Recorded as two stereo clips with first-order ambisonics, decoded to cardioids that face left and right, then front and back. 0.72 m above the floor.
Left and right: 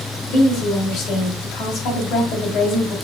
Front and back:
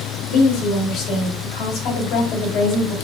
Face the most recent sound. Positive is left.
turn(degrees=40)